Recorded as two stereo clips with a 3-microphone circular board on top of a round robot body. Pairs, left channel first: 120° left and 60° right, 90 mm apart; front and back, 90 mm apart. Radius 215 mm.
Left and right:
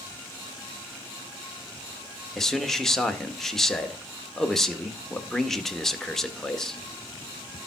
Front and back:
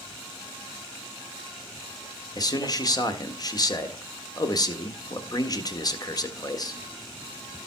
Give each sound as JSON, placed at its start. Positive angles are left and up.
{"t": 2.4, "sound": "a man speaking", "azimuth_deg": 35, "distance_m": 1.8}